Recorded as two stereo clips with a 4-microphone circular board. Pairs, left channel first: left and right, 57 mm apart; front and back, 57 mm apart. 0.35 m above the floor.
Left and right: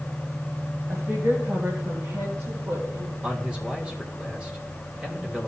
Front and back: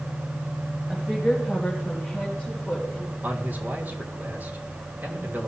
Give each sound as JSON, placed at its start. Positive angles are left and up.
{"t": 0.9, "sound": "a woman speaking", "azimuth_deg": -100, "distance_m": 1.8}
{"t": 3.2, "sound": "a man speaking", "azimuth_deg": -150, "distance_m": 1.7}